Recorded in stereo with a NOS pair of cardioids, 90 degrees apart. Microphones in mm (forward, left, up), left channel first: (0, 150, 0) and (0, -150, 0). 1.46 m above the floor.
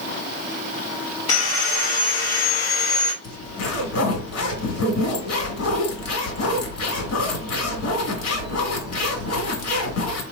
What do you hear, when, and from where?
1.3 s sawing: 50° left, 1.7 m
3.2 s a zipper: 55° left, 1.9 m